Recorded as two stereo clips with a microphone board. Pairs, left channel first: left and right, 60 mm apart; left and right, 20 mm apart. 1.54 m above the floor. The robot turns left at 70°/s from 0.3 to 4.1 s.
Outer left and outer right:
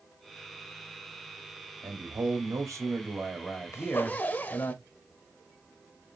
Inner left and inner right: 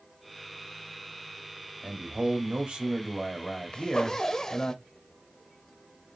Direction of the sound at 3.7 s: 50° left (ahead or behind).